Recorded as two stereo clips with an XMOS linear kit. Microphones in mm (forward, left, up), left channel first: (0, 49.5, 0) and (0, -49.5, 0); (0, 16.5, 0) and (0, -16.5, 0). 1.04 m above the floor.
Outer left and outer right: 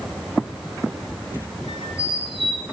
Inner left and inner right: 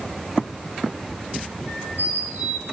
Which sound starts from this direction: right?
A squeak, at 1.7 s.